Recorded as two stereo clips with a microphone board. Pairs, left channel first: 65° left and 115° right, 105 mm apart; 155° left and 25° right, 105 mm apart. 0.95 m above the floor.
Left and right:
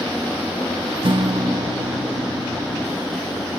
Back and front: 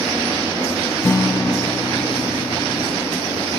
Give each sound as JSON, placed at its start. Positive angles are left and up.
{"t": 1.0, "sound": "a guitar", "azimuth_deg": -140, "distance_m": 0.8}